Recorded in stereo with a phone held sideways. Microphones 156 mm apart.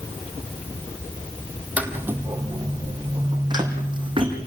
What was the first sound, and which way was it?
Footsteps, 10° right (ahead or behind).